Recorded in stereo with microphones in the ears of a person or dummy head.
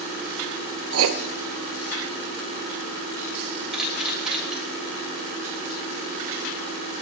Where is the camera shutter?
5° right (ahead or behind), 3.5 m.